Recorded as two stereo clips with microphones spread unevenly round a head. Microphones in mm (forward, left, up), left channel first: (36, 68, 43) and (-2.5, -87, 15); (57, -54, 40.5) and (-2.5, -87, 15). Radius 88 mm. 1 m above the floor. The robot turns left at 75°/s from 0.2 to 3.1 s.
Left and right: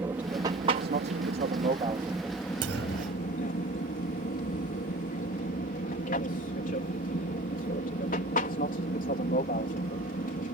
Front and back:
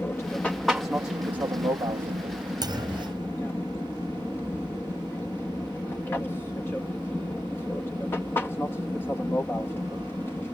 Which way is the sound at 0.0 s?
35° right.